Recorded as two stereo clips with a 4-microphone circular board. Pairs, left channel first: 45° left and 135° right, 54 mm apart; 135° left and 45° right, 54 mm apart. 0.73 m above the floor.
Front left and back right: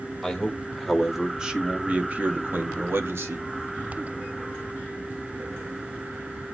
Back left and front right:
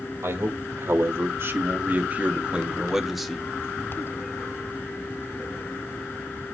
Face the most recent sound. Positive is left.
turn(degrees=-140)